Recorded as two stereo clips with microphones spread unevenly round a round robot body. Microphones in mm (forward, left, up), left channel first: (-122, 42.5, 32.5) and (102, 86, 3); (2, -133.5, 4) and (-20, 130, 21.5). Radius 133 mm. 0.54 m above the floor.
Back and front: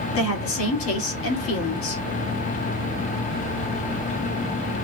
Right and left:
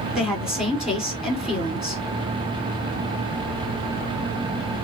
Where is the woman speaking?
175° right, 1.8 m.